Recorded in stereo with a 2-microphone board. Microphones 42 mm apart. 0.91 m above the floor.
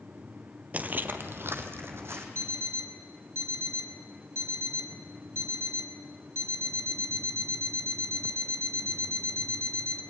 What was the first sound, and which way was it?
Footsteps, 35° right (ahead or behind).